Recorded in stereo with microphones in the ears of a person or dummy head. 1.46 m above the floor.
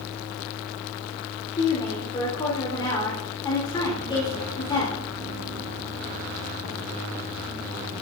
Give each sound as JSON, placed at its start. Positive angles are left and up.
{"t": 1.6, "sound": "a woman speaking", "side_deg": 25, "distance_m": 4.0}